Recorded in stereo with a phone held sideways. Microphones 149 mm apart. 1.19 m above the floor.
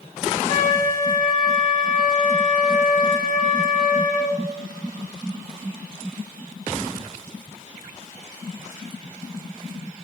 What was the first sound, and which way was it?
A flute, 60° left (ahead or behind).